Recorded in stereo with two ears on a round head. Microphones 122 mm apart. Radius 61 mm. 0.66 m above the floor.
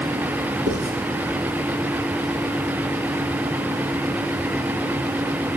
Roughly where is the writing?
Right.